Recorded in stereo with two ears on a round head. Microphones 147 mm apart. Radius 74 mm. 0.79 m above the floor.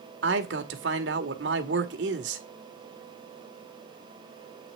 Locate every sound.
0.2 s a man speaking: 80° right, 1.9 m